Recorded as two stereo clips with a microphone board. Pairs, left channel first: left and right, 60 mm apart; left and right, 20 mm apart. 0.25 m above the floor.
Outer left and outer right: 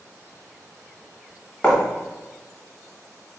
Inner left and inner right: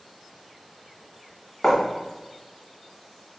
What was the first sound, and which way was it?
Writing, 15° left (ahead or behind).